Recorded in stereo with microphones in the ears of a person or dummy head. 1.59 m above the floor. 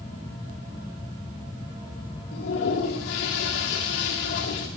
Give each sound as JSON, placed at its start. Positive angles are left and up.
{"t": 2.3, "sound": "a toilet flushing", "side_deg": 65, "distance_m": 2.0}